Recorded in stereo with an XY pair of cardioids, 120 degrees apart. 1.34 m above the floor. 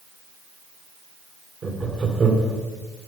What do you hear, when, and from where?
1.6 s laughter: 35° right, 2 m